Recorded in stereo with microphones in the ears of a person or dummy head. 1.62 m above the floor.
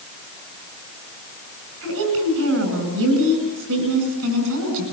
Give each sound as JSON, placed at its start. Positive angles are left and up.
{"t": 1.8, "sound": "a woman speaking", "side_deg": -75, "distance_m": 9.5}